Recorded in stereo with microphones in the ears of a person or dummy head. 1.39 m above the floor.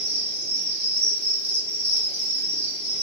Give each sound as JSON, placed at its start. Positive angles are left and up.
{"t": 0.0, "sound": "an insect", "side_deg": -25, "distance_m": 1.3}